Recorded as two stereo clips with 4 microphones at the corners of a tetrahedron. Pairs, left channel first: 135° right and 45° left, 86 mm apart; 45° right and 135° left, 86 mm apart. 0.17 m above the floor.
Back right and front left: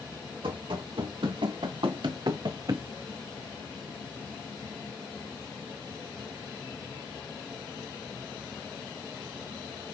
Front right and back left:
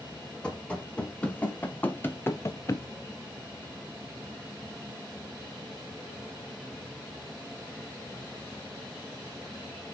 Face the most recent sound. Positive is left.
turn(degrees=0)